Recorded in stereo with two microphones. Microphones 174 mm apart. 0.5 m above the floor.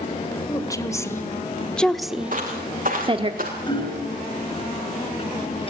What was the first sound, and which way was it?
A woman speaking, 20° left (ahead or behind).